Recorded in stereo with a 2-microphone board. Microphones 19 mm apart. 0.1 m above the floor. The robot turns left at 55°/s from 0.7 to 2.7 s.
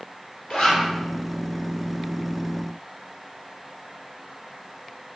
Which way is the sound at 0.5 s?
50° left (ahead or behind).